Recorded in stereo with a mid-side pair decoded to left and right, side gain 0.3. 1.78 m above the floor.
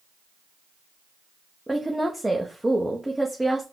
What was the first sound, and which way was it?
A woman speaking, 10° right.